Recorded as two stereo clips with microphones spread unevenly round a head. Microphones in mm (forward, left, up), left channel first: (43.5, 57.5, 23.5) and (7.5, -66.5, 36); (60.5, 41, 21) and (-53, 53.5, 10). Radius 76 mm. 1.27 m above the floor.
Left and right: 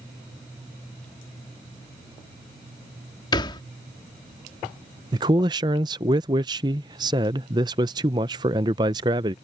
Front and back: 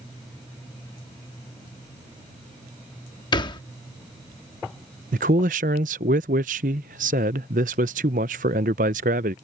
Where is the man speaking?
170° right.